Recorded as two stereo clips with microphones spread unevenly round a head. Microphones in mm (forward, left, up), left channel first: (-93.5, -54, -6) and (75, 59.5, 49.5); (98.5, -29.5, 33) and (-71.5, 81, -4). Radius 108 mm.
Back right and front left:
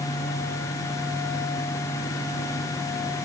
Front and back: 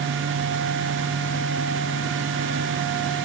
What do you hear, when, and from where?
Only background noise.